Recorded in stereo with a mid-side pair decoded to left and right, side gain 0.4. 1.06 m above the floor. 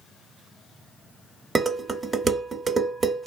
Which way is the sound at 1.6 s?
35° right.